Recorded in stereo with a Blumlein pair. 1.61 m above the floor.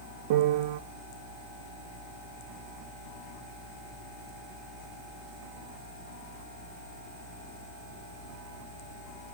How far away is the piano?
About 0.8 m.